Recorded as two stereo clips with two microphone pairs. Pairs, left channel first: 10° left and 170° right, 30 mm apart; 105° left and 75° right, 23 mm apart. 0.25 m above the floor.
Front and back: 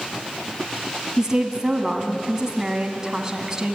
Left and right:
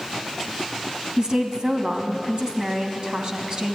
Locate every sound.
1.2 s a woman speaking: 105° right, 1.9 m